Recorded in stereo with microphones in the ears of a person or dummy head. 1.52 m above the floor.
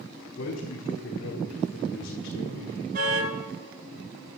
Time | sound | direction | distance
0.3 | a man speaking | 60° left (ahead or behind) | 4.5 m
2.9 | a car horn | 50° right (ahead or behind) | 8 m